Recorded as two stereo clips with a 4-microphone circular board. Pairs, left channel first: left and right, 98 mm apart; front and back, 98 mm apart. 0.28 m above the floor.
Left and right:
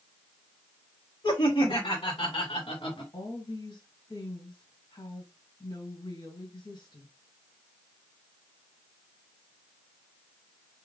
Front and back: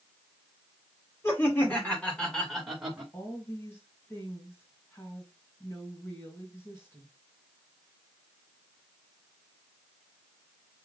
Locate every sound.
1.2 s laughter: 60° left, 2.5 m; by 3.0 s 95° left, 2.5 m
3.1 s a woman speaking: 55° left, 2.5 m